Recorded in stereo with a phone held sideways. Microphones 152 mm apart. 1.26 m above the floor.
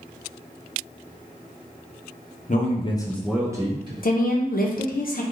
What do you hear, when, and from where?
2.5 s a man speaking: 55° left (ahead or behind), 0.7 m; by 3.9 s 30° right (ahead or behind), 1.0 m
4.0 s a woman speaking: 70° left (ahead or behind), 0.6 m